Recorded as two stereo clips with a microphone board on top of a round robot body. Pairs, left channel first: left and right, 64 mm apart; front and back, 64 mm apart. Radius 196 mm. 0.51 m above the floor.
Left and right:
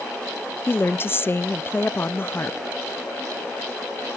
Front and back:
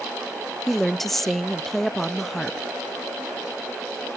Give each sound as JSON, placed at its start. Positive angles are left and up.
{"t": 0.7, "sound": "a woman speaking", "azimuth_deg": 85, "distance_m": 0.8}